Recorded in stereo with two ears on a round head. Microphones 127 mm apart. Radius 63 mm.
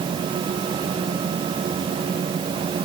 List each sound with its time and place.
Only background noise.